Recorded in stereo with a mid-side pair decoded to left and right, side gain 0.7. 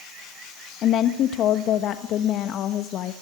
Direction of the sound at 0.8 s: 50° left.